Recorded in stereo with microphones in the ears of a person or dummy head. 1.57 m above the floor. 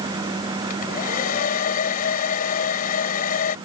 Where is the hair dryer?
50° left (ahead or behind).